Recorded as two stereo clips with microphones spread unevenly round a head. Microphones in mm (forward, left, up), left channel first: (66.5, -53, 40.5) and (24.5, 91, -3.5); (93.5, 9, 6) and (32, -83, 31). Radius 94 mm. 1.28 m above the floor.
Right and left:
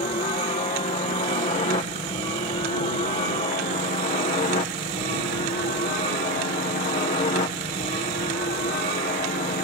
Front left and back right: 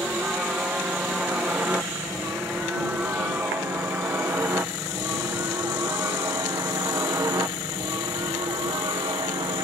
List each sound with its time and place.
0.0 s a helicopter: 40° right; by 9.6 s 95° right